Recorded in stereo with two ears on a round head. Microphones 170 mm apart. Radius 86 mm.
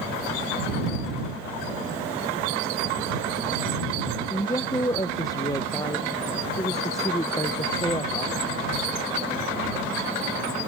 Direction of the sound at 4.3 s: 20° left (ahead or behind).